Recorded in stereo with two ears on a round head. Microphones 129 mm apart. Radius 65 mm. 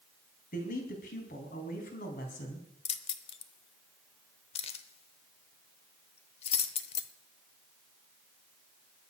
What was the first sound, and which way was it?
A man speaking, 60° left (ahead or behind).